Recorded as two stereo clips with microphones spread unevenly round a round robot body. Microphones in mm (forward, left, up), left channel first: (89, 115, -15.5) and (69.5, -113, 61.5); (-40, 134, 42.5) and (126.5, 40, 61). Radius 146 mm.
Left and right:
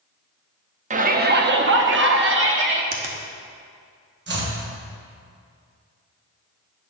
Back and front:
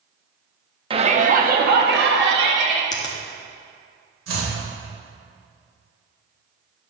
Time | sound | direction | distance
0.9 | a shout | 35° right | 0.7 m
2.9 | a finger snap | 155° right | 0.8 m
4.3 | chopping | 50° right | 1.9 m